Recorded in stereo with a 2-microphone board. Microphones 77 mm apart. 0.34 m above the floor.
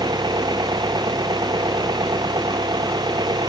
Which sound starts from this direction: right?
An engine running, at 0.0 s.